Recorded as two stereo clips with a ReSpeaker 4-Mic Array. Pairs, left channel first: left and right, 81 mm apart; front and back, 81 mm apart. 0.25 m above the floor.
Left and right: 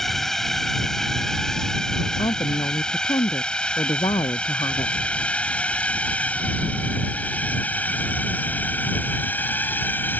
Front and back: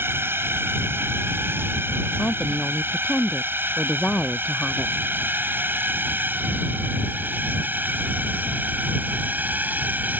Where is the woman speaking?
75° left.